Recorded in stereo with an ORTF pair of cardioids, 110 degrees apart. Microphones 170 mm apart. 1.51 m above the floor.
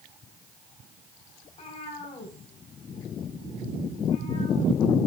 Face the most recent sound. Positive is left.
turn(degrees=40)